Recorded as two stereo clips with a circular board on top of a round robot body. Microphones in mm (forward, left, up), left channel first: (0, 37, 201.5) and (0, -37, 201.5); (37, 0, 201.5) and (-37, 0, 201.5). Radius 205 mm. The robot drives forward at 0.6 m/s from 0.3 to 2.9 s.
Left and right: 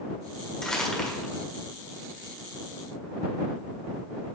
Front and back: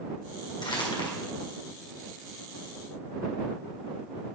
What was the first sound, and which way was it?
Crumpling, 10° left.